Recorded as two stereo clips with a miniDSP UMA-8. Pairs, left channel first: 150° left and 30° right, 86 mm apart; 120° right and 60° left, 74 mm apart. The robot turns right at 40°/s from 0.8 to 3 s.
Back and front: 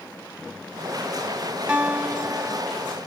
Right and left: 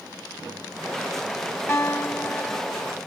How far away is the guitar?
About 1.0 m.